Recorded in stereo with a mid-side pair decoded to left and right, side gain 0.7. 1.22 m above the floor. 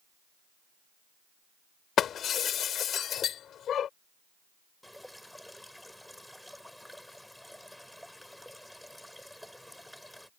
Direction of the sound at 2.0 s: 40° left.